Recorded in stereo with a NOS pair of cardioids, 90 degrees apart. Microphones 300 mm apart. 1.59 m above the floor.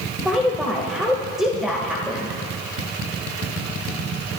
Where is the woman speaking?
Straight ahead, 2 m.